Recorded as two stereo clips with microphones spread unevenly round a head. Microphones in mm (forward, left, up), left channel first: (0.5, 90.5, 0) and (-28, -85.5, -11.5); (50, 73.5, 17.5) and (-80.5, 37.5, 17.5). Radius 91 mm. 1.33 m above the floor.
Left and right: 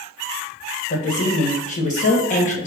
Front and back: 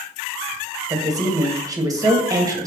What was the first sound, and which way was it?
A woman speaking, 130° left.